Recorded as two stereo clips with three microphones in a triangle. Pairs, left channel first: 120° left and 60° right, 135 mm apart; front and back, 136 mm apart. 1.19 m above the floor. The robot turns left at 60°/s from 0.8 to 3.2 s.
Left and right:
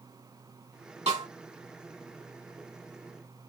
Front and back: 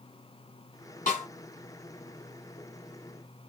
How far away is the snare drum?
About 3.5 m.